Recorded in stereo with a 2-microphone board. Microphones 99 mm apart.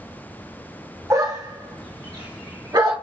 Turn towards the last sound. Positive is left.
turn(degrees=-50)  # may be behind; listen again after turning